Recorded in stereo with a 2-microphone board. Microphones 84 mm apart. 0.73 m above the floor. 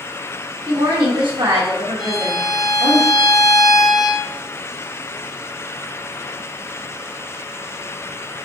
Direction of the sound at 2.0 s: 5° right (ahead or behind).